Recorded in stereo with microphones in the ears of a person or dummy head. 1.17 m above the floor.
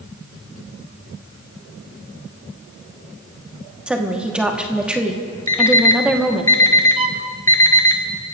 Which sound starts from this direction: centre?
A woman speaking, at 3.9 s.